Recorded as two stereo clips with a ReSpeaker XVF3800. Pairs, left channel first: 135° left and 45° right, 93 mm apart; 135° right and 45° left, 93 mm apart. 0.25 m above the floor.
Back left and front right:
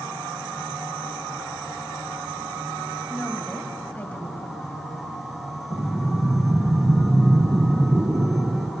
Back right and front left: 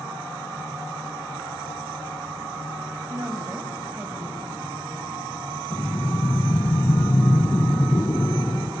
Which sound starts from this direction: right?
Breathing, at 5.7 s.